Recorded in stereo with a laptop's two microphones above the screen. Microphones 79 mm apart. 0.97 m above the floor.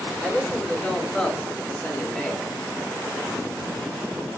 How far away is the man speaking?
About 4.5 m.